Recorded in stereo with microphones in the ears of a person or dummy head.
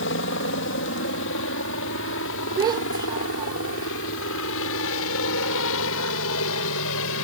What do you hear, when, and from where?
0.0 s a helicopter: 60° left (ahead or behind); by 7.2 s 65° left (ahead or behind)
2.6 s a child speaking: 15° right (ahead or behind)